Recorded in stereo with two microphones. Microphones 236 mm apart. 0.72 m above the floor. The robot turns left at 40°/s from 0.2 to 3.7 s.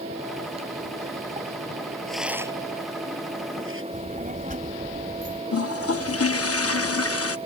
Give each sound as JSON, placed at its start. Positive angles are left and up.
{"t": 2.1, "sound": "a rattle", "side_deg": 5}
{"t": 3.9, "sound": "a child speaking", "side_deg": -35}
{"t": 5.5, "sound": "a toilet flushing", "side_deg": 80}